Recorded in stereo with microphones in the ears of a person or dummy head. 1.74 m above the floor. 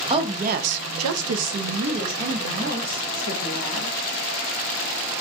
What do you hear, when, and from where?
0.1 s a woman speaking: 20° right (ahead or behind), 0.6 m; by 3.9 s 45° right (ahead or behind), 1.9 m